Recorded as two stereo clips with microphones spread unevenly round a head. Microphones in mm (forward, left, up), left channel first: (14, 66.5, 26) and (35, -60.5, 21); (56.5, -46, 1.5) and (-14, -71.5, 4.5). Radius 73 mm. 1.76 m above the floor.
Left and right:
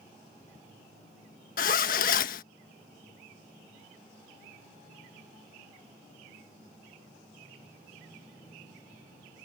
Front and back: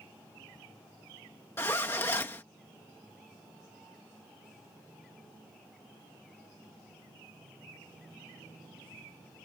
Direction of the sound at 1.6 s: 90° left.